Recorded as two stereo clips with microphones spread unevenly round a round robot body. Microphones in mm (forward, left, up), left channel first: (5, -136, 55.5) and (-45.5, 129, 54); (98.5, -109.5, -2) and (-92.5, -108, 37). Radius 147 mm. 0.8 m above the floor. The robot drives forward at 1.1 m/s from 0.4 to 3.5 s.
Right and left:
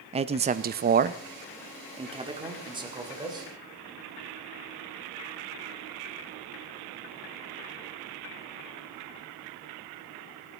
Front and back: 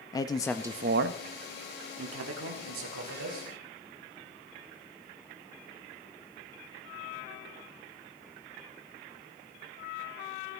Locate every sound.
0.1 s a man speaking: 45° left, 0.5 m; by 3.5 s 175° left, 3 m